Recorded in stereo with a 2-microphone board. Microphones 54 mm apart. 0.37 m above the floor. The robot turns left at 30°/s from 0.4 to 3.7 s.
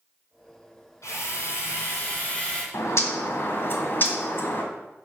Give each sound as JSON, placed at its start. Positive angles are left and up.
{"t": 1.0, "sound": "a drill", "azimuth_deg": 75, "distance_m": 2.0}
{"t": 2.7, "sound": "a bird", "side_deg": 65, "distance_m": 1.6}